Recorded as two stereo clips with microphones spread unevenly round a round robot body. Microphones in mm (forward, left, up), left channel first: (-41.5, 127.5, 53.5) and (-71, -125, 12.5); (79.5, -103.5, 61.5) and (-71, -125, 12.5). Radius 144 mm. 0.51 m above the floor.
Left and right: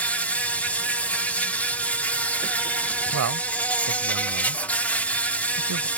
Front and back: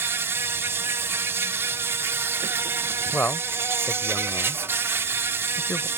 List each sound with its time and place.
0.0 s an insect: straight behind
3.1 s a man speaking: 70° right